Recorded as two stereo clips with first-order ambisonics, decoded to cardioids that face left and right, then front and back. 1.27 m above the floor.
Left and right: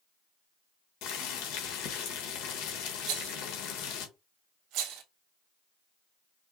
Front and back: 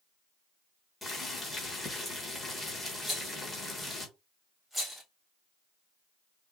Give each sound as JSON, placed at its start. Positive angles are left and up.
{"t": 1.0, "sound": "boiling", "azimuth_deg": 80, "distance_m": 1.2}
{"t": 3.1, "sound": "a rattle", "azimuth_deg": -90, "distance_m": 0.8}